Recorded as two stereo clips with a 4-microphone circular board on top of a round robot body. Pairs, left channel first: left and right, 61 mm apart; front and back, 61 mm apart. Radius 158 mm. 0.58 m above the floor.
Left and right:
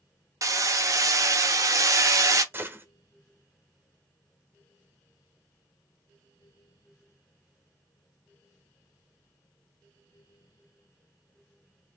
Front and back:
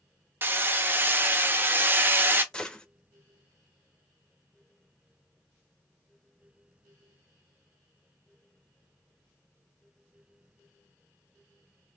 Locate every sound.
0.4 s hammering: 125° right, 0.9 m
2.5 s a gunshot: 70° right, 1.2 m